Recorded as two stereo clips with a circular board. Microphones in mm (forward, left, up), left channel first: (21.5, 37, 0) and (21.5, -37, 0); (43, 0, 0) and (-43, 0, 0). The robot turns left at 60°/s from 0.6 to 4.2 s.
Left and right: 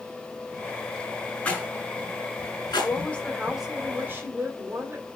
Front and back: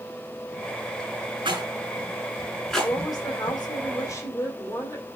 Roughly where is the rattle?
Behind.